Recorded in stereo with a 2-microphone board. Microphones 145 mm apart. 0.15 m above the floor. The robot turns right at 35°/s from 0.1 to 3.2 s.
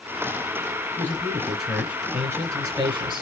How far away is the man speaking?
About 2 m.